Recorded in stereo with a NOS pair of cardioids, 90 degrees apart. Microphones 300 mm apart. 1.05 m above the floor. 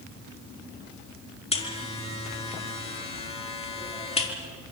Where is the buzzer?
20° left, 4 m.